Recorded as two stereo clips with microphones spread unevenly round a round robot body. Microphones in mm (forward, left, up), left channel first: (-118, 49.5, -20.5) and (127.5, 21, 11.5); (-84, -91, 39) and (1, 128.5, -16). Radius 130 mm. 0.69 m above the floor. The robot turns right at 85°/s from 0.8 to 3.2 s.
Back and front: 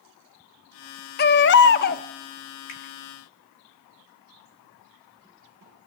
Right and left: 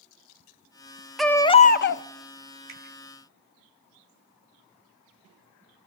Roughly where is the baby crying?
Behind left.